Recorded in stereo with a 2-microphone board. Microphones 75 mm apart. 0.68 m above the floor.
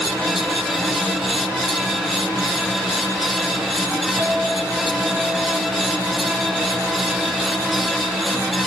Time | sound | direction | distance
4.2 | a clink | 45° right (ahead or behind) | 4.5 m